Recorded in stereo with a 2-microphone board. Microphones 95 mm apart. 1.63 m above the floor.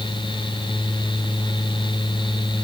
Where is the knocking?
No knocking in this recording.